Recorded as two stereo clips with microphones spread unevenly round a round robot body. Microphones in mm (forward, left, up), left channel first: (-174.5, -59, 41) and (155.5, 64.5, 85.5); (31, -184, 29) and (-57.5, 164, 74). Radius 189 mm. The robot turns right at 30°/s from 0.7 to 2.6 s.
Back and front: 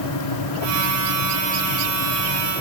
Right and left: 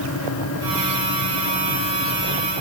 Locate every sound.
Only background noise.